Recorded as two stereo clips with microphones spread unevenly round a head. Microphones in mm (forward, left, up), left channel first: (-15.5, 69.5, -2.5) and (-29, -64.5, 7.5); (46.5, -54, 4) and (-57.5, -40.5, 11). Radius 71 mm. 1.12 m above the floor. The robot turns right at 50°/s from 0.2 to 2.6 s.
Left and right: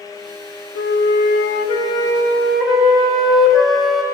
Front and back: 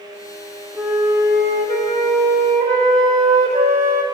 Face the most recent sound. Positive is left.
turn(degrees=175)